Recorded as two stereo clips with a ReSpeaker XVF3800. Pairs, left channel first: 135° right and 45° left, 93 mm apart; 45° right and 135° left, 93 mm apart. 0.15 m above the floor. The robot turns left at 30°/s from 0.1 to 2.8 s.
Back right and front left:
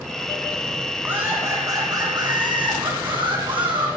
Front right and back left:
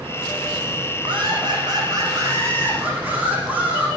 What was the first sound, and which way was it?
Laughter, 110° left.